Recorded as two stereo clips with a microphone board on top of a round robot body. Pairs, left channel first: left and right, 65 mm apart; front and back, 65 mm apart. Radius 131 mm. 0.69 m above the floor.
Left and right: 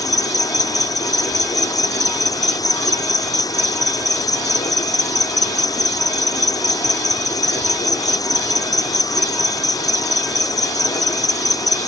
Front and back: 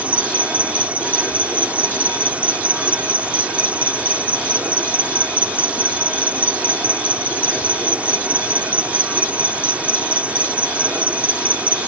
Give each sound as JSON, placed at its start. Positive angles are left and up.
{"t": 0.0, "sound": "an insect", "azimuth_deg": 110}